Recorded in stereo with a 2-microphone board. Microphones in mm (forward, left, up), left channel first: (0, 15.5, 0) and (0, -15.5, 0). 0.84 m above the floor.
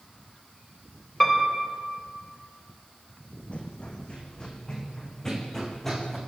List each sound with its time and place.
1.2 s a piano: 15° left (ahead or behind), 4 m
3.5 s running footsteps: 40° left (ahead or behind), 3 m; by 6.2 s 5° left (ahead or behind), 4 m